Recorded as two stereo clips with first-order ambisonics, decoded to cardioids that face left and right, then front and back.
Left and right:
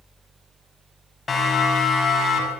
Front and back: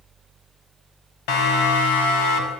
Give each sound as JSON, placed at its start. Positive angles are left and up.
{"t": 1.3, "sound": "a siren", "azimuth_deg": 20, "distance_m": 5.0}